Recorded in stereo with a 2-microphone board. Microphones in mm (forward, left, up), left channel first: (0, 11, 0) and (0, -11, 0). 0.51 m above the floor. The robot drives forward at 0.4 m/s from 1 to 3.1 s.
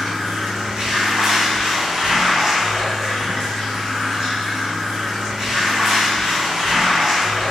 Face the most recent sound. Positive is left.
turn(degrees=-25)  # may be behind; listen again after turning